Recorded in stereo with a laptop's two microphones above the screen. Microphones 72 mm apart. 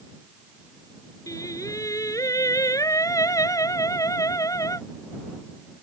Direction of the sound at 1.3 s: 50° left (ahead or behind).